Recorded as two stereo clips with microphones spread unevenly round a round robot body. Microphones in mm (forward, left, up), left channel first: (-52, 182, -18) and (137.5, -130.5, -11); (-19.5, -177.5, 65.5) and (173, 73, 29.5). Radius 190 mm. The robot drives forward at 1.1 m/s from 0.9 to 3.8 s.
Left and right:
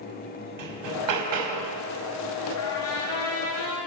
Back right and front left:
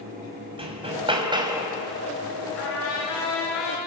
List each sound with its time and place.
0.6 s hammering: 20° right, 4 m; by 1.8 s 30° right, 3 m
2.6 s a trumpet: 175° left, 5.5 m